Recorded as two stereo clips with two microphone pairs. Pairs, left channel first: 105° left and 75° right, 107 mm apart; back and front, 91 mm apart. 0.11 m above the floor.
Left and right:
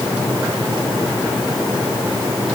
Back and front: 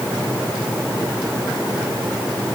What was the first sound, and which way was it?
Only background noise.